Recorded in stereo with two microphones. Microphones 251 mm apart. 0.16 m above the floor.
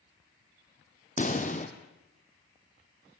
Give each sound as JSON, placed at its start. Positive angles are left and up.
{"t": 1.2, "sound": "a pop", "side_deg": 30, "distance_m": 2.0}